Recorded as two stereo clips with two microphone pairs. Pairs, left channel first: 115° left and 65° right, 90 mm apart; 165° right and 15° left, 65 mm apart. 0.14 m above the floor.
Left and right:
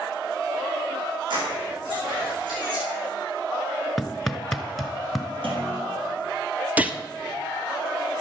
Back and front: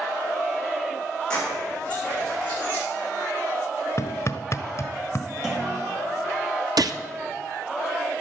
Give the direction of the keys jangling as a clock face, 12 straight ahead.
3 o'clock.